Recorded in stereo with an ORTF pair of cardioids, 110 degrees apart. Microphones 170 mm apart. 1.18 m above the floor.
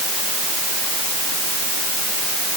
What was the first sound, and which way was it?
Only background noise.